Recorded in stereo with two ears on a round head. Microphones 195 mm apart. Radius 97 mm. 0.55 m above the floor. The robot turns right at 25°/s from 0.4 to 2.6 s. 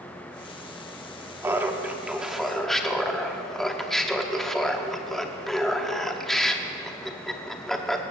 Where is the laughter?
10° right (ahead or behind), 0.9 m; by 8.0 s centre (ahead or behind), 0.9 m.